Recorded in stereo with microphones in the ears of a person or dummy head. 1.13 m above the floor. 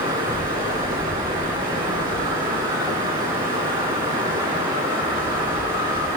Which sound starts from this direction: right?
Running water, at 0.0 s.